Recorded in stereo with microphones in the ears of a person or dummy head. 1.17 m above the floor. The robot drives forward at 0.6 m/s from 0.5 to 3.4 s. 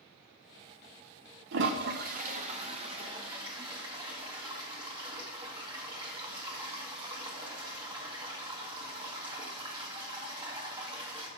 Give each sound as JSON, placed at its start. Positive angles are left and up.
{"t": 1.5, "sound": "a toilet flushing", "side_deg": -60, "distance_m": 0.7}